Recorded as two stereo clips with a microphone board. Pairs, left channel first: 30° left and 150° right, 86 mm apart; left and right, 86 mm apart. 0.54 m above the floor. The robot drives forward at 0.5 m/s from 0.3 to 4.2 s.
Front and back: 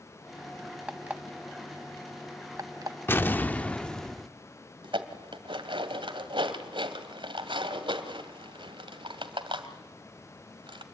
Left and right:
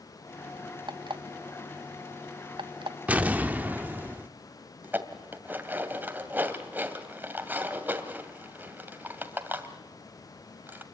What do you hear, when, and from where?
0.9 s an alarm clock: 75° right, 1.8 m; by 3.0 s 105° right, 1.8 m
3.1 s an explosion: 25° right, 1.2 m; by 4.3 s 55° right, 0.9 m
4.8 s dishes clattering: 155° right, 2 m